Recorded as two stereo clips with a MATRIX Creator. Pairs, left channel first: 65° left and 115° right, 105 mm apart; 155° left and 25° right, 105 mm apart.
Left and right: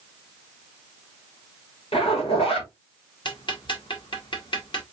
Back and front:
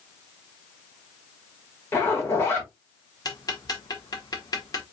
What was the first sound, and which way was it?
A zipper, 90° left.